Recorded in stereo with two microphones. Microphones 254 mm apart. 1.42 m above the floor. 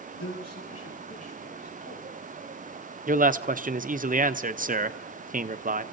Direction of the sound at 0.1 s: 80° left.